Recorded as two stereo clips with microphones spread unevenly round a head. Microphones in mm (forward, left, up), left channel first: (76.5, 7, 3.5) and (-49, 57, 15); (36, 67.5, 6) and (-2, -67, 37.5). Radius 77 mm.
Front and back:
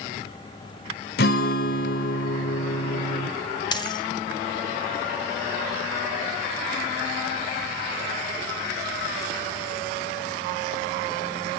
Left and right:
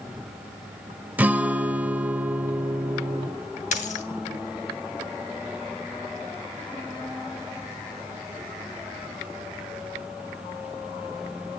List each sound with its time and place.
1.2 s a guitar: 35° right, 1.1 m
3.7 s a dropped coin: 35° left, 2.5 m